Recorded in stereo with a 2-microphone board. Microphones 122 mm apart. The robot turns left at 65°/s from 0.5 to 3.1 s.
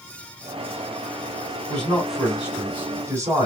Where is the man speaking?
10° left (ahead or behind), 1.6 m; by 3.5 s 25° right (ahead or behind), 1.6 m.